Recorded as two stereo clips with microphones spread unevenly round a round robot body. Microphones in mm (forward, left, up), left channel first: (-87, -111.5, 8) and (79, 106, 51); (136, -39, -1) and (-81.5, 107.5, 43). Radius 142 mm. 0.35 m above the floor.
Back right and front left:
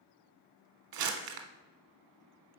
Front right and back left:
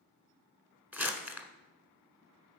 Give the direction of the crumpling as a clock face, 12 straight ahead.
10 o'clock.